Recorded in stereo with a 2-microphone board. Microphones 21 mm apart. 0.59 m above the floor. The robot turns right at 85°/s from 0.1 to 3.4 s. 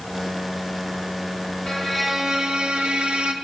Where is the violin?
150° left, 1.4 m; by 3.3 s 70° right, 1.4 m.